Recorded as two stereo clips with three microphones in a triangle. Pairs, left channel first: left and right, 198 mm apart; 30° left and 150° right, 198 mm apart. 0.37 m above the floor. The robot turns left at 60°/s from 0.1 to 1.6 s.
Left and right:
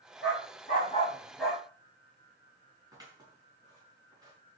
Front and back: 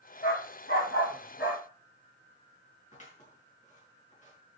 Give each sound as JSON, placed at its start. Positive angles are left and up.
{"t": 0.2, "sound": "a dog barking", "azimuth_deg": 75, "distance_m": 7.5}
{"t": 2.9, "sound": "scissors", "azimuth_deg": -20, "distance_m": 5.5}